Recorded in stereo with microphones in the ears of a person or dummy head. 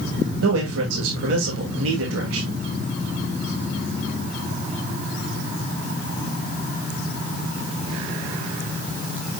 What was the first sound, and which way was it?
A man speaking, 75° right (ahead or behind).